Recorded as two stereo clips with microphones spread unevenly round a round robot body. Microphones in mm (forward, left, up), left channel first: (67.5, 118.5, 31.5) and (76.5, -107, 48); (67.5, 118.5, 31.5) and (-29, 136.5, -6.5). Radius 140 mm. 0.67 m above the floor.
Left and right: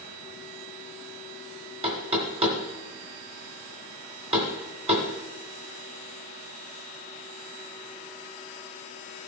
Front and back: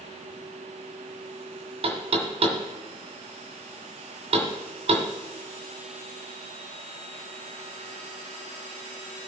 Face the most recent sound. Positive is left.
turn(degrees=-155)